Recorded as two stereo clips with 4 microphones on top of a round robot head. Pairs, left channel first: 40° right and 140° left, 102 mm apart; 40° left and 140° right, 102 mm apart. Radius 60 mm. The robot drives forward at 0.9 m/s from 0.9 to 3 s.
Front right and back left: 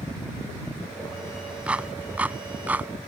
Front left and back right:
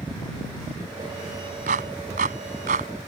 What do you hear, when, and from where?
1.7 s a clap: 145° right